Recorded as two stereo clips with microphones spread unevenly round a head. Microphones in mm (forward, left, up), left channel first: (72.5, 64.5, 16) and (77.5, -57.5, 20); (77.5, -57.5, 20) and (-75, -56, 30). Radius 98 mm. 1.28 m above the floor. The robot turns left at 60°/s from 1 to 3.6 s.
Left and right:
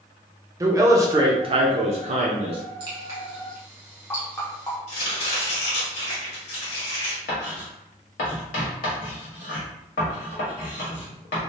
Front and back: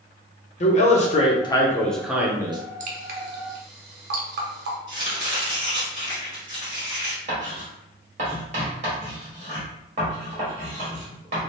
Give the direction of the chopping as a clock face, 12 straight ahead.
8 o'clock.